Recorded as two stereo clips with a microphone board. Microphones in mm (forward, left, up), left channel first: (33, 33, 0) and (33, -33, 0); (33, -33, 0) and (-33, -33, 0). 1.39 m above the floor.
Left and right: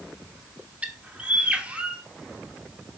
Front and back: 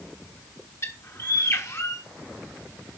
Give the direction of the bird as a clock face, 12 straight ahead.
1 o'clock.